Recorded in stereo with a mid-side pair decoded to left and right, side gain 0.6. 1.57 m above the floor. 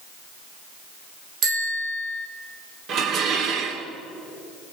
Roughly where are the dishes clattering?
Ahead right.